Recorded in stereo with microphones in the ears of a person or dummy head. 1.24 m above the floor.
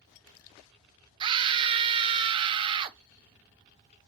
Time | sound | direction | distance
1.2 | a scream | 30° right (ahead or behind) | 0.5 m